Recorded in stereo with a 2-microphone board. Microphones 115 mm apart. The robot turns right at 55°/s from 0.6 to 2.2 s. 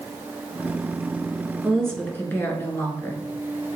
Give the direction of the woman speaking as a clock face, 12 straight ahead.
12 o'clock.